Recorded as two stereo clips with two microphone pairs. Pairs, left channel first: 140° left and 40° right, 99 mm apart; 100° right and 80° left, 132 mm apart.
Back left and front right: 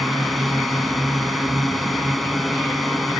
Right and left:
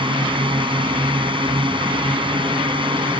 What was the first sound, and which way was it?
A drone, 50° left.